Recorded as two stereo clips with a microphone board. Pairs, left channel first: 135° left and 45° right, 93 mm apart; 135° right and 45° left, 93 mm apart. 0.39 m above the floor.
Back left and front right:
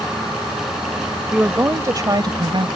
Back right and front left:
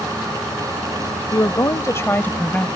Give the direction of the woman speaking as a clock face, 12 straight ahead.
4 o'clock.